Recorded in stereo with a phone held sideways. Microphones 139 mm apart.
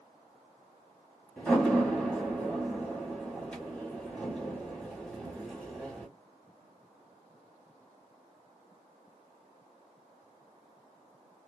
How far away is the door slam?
About 2 m.